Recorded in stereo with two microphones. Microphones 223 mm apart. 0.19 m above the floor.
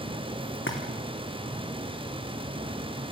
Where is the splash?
60° left (ahead or behind), 4 m.